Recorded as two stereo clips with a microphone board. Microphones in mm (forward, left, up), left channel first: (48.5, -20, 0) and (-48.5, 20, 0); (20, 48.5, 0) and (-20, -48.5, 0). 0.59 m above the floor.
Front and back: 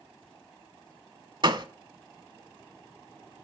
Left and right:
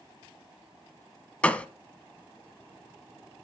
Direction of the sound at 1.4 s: 140° left.